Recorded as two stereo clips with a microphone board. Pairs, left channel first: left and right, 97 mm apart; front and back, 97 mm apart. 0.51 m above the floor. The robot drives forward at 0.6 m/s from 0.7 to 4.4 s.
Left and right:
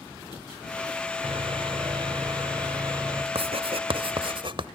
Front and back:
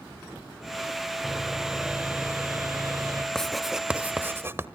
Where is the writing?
85° right, 1.1 m; by 4.7 s 115° right, 1.2 m.